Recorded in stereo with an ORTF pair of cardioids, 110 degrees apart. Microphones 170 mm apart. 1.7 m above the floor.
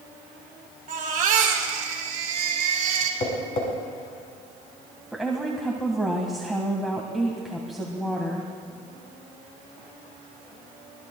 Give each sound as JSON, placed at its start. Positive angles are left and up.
{"t": 0.9, "sound": "a baby crying", "azimuth_deg": -55, "distance_m": 3.0}
{"t": 3.2, "sound": "tapping", "azimuth_deg": 50, "distance_m": 6.5}
{"t": 5.1, "sound": "a woman speaking", "azimuth_deg": 0, "distance_m": 1.6}